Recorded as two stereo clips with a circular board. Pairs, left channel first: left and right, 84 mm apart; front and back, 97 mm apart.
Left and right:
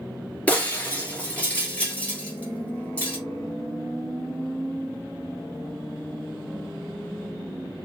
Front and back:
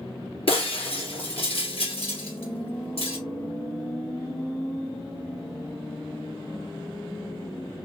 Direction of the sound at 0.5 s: 15° left.